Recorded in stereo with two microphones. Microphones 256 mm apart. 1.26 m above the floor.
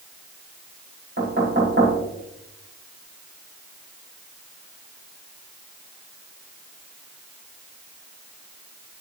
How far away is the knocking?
About 5.5 m.